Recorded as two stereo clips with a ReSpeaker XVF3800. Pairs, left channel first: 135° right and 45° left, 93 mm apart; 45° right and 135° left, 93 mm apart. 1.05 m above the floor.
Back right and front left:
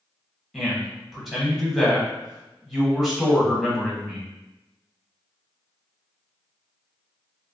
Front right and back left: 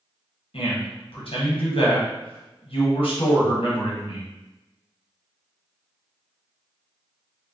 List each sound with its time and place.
0.5 s a man speaking: 40° right, 1.0 m